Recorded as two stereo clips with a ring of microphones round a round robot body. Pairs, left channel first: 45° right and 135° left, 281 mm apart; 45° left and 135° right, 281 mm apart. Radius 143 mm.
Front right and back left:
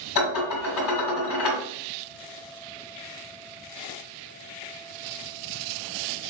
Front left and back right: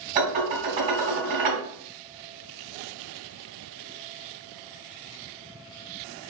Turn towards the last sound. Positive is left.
turn(degrees=-70)